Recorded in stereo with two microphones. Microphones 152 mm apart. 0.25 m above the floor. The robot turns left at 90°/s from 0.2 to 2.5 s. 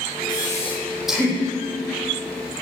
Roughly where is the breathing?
Left.